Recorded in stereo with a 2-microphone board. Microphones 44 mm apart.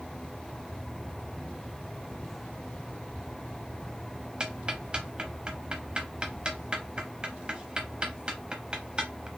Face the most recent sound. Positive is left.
turn(degrees=-25)  # may be behind; listen again after turning